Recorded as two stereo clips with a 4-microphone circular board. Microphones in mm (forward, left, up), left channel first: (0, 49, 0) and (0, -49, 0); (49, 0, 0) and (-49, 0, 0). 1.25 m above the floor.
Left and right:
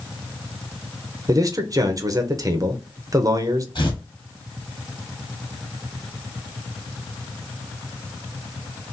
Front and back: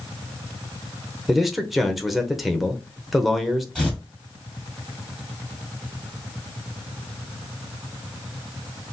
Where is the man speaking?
90° right, 0.6 m.